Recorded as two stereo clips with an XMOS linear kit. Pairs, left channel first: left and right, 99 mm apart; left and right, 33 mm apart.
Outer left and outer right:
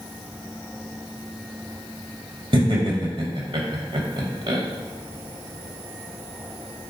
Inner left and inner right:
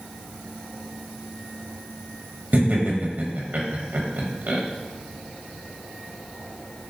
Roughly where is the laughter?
Right.